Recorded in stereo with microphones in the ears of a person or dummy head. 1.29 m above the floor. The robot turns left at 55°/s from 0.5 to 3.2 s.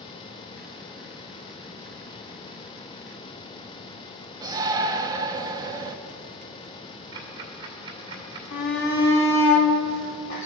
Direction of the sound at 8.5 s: 65° left (ahead or behind).